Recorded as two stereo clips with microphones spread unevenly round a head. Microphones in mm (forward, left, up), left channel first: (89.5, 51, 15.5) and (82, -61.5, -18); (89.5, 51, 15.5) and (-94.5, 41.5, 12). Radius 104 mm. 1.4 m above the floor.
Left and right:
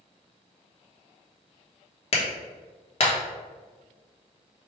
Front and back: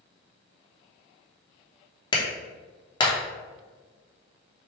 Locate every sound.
2.1 s a clap: 70° left, 1.0 m